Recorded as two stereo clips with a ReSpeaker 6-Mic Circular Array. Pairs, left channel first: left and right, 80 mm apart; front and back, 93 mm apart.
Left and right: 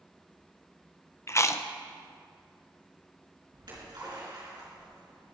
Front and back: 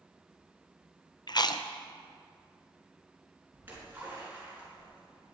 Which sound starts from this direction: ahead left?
Chewing, at 1.3 s.